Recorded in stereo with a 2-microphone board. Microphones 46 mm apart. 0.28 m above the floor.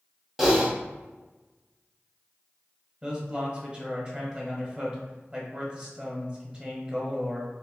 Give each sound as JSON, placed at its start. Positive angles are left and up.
{"t": 0.4, "sound": "typing on a keyboard", "side_deg": -5, "distance_m": 1.1}
{"t": 3.0, "sound": "a man speaking", "side_deg": -25, "distance_m": 1.1}